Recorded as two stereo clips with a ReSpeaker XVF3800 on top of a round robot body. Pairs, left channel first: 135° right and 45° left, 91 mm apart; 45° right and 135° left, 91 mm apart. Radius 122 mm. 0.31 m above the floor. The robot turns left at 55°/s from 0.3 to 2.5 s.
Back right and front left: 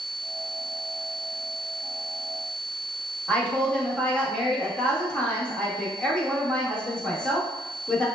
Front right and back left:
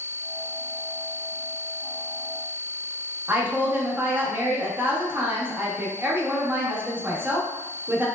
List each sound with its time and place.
3.3 s a woman speaking: 160° left, 0.9 m